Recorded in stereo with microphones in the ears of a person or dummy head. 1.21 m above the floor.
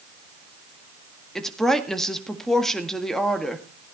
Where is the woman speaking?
Centre (ahead or behind), 1.8 m.